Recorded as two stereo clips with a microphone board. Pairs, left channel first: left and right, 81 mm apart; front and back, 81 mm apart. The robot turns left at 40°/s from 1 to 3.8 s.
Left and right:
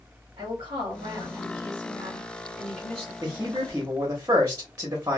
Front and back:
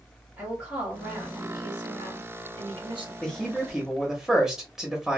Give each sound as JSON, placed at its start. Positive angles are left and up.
{"t": 0.4, "sound": "a woman speaking", "azimuth_deg": -105, "distance_m": 1.8}
{"t": 3.2, "sound": "a man speaking", "azimuth_deg": -70, "distance_m": 0.9}